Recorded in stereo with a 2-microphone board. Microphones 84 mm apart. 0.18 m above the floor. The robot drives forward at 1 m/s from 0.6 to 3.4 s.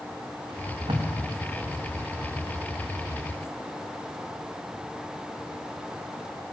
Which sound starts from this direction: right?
Tape being pulled, at 0.5 s.